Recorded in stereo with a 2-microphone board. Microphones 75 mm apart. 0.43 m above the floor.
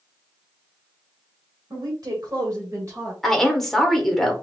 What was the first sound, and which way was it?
A woman speaking, 55° right (ahead or behind).